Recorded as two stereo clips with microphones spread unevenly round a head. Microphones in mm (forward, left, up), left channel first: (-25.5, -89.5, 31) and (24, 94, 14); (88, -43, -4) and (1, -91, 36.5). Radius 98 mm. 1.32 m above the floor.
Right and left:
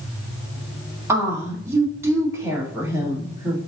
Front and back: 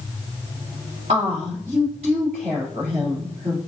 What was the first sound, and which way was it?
A woman speaking, 155° left.